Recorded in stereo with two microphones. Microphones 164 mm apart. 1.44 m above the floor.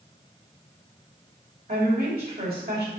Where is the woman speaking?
70° right (ahead or behind), 3 m.